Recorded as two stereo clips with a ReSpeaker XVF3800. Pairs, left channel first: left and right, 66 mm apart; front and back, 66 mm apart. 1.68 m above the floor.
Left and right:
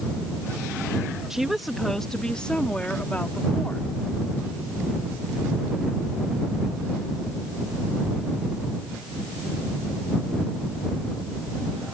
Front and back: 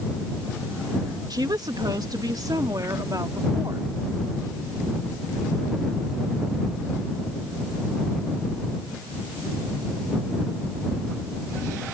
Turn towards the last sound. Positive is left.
turn(degrees=150)